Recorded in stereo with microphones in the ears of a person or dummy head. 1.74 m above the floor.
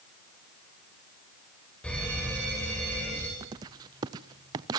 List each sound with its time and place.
1.8 s an alarm: 5° left (ahead or behind), 9 m
3.4 s writing: 20° right (ahead or behind), 0.6 m